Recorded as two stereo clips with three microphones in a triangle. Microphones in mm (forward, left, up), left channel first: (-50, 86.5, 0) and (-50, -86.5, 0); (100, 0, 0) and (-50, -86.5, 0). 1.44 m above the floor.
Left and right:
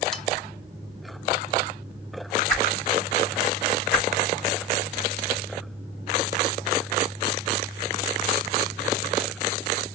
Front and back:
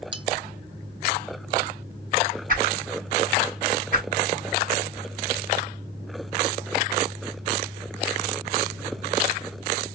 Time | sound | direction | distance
0.1 | cutlery clinking | 175° left | 0.8 m
2.5 | a whoosh | 175° left | 4 m